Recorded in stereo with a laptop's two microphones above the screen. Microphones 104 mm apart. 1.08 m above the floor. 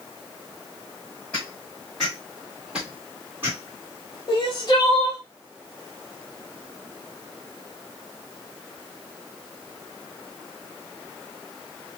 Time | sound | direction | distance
1.3 | footsteps | 10° left (ahead or behind) | 1.8 m
4.3 | crying | 40° left (ahead or behind) | 0.9 m